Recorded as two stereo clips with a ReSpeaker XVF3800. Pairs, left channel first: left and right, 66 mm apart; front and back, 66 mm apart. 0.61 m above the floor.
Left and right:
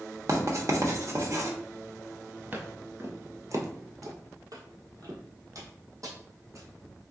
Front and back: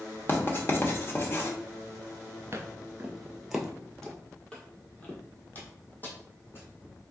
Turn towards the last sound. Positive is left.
turn(degrees=-55)